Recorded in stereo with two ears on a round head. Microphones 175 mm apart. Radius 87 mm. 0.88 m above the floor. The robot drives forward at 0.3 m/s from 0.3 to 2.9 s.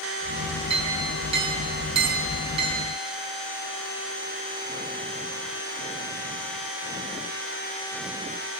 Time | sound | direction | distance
0.7 | a clink | 30° right (ahead or behind) | 6.5 m